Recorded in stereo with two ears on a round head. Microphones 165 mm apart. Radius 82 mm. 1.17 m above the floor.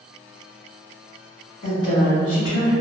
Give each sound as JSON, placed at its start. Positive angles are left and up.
{"t": 1.6, "sound": "a woman speaking", "side_deg": 65, "distance_m": 1.7}